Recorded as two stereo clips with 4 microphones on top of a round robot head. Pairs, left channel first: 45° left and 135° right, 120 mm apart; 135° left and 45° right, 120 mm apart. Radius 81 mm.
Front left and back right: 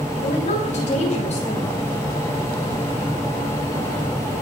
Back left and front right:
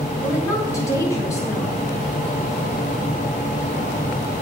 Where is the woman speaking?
70° left, 8 m.